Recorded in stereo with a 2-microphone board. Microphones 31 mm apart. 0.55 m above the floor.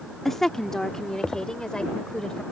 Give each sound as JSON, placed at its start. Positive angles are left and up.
{"t": 0.2, "sound": "a woman speaking", "side_deg": 10}